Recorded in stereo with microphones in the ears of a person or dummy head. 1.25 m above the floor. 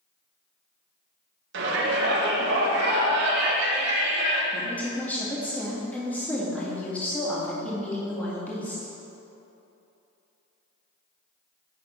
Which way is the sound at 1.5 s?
65° right (ahead or behind).